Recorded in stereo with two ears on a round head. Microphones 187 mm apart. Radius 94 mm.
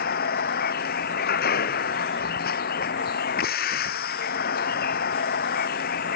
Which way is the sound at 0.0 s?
45° left (ahead or behind).